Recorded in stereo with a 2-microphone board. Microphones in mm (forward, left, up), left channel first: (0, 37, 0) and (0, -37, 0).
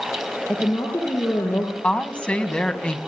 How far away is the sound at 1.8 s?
About 2.5 m.